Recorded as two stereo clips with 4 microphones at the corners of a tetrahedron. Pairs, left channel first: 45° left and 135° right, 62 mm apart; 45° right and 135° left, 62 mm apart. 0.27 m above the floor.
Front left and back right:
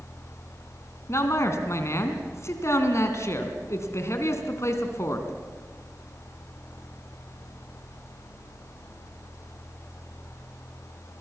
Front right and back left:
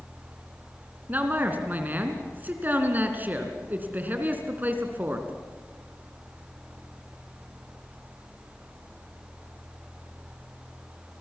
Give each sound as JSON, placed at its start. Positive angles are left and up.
{"t": 1.1, "sound": "a man speaking", "azimuth_deg": 80, "distance_m": 3.0}